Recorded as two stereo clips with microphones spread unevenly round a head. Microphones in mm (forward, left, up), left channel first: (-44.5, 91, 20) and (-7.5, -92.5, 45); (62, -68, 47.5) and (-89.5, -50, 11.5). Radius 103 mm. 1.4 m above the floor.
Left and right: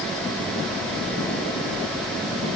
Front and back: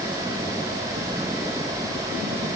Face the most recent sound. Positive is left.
No sound to turn to.